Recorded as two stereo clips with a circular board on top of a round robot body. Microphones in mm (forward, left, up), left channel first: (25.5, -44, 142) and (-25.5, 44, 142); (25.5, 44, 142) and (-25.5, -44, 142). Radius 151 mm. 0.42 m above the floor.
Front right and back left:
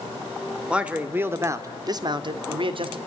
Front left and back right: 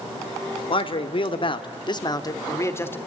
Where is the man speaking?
40° left, 2 m; by 3.0 s 125° left, 2 m.